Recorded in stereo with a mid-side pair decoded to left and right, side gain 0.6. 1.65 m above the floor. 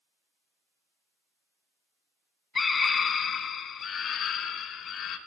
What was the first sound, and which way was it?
A scream, 25° left.